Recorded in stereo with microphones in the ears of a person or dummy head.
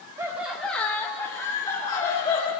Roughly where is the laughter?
Centre.